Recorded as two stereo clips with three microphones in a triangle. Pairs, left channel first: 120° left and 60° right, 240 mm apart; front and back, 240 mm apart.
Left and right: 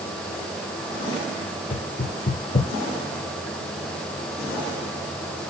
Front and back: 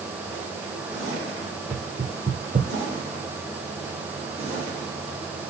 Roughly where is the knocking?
Behind left.